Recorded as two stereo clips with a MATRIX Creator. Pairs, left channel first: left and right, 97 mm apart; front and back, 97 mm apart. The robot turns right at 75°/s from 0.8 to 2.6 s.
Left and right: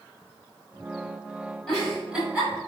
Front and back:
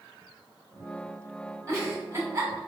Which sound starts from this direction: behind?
A giggle, at 1.7 s.